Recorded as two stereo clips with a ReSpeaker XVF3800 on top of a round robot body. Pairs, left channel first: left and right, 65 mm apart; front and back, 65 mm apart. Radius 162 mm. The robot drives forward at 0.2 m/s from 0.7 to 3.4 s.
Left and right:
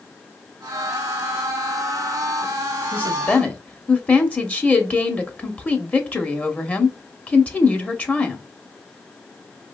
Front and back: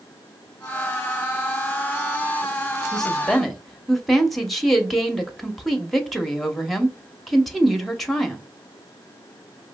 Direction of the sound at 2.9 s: 65° left.